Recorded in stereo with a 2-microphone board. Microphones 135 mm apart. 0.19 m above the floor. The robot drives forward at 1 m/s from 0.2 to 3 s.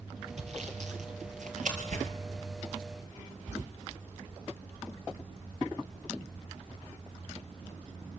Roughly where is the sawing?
Right.